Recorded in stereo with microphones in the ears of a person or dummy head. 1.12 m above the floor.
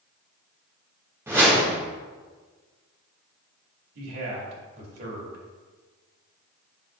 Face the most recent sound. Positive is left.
turn(degrees=-60)  # may be behind; listen again after turning